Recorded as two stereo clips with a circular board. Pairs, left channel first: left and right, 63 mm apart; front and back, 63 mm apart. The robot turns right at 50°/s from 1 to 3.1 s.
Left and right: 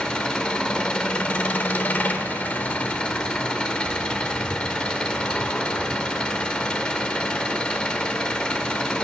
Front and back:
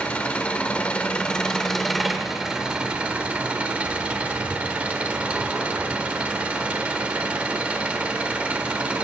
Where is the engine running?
35° left, 0.8 m; by 9.0 s 140° left, 0.8 m.